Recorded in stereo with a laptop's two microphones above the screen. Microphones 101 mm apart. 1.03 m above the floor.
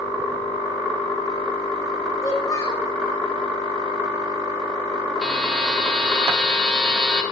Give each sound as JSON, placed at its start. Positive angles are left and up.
{"t": 2.2, "sound": "a child speaking", "side_deg": 45, "distance_m": 1.8}
{"t": 5.2, "sound": "a buzzer", "side_deg": 0, "distance_m": 2.0}